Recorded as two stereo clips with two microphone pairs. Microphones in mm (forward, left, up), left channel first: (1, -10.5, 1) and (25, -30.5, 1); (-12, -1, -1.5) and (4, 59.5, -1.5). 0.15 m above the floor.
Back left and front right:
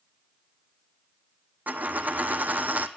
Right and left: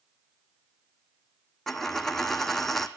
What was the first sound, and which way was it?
A dropped coin, 20° right.